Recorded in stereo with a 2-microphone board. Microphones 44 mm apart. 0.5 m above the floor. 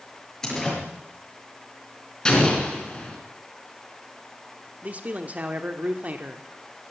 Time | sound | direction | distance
0.4 | a door slam | 15° left (ahead or behind) | 6.5 m
2.2 | an explosion | 20° left (ahead or behind) | 3.5 m
4.8 | a man speaking | 35° right (ahead or behind) | 1.2 m